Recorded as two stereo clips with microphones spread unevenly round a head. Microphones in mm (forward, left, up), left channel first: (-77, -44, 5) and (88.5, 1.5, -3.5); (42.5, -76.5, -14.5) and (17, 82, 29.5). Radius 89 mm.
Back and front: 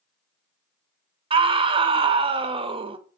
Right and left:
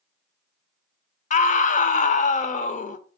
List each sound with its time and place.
1.3 s a scream: 45° right, 0.8 m